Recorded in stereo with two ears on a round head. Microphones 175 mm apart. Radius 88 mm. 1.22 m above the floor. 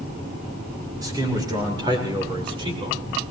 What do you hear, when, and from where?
1.0 s a man speaking: 20° right (ahead or behind), 5.5 m; by 3.0 s 30° right (ahead or behind), 4 m